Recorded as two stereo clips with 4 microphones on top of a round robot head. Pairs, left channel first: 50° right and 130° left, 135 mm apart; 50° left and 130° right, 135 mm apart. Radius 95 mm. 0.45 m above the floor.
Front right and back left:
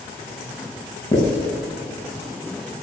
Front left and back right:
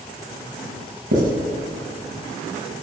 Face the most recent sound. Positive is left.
turn(degrees=-115)